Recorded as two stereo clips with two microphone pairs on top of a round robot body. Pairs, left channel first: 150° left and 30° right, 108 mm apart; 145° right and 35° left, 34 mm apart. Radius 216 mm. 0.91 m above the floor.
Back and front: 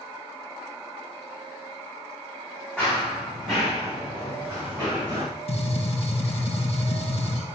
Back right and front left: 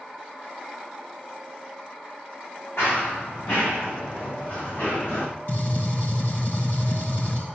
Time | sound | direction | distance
2.8 | running footsteps | 125° right | 5.5 m
5.5 | a gunshot | 175° left | 3 m